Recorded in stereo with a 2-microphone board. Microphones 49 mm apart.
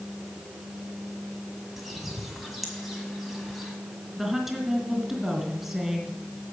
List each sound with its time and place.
1.8 s a bird: centre (ahead or behind), 1.8 m
4.2 s a woman speaking: 5° right (ahead or behind), 2.5 m